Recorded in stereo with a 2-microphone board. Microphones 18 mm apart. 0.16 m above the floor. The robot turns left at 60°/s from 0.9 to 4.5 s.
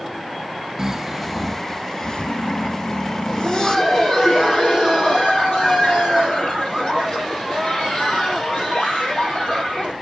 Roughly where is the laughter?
Behind.